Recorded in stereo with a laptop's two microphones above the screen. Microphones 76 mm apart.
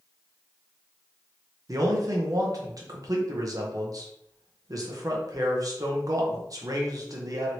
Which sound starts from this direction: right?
A man speaking, at 1.7 s.